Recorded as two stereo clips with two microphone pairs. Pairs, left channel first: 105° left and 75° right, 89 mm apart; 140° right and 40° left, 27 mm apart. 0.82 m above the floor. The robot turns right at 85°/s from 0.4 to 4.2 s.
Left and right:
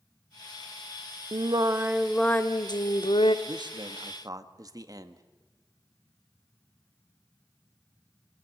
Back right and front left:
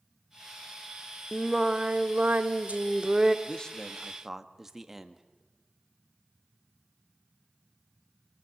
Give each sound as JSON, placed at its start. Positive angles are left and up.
{"t": 1.3, "sound": "singing", "azimuth_deg": -55, "distance_m": 0.9}
{"t": 3.5, "sound": "a man speaking", "azimuth_deg": -100, "distance_m": 1.4}